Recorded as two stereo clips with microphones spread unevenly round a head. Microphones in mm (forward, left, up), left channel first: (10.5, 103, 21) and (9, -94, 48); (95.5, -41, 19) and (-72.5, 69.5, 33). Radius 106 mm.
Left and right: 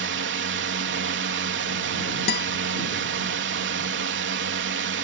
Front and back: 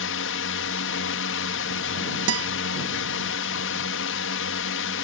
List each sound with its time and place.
0.0 s a drone: 60° right
2.3 s a guitar: 135° left